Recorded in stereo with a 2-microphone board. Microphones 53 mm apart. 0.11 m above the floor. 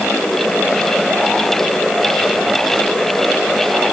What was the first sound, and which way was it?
Only background noise.